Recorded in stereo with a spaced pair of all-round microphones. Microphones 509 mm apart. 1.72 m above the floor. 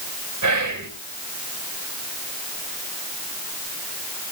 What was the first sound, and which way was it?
Whispering, 40° right (ahead or behind).